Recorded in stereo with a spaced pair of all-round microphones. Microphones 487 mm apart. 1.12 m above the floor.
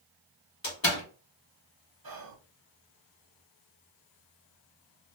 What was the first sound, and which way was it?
A door slam, 65° left (ahead or behind).